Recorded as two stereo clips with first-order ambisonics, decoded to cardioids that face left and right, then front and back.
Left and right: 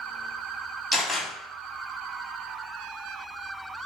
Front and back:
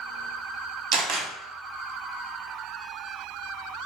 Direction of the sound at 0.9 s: 175° right.